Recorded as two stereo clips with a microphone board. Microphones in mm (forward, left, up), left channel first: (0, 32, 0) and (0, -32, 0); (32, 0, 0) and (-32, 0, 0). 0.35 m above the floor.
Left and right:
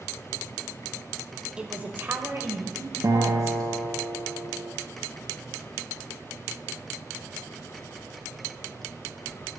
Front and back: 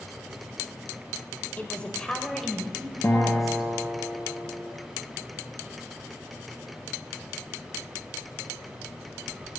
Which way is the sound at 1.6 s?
30° right.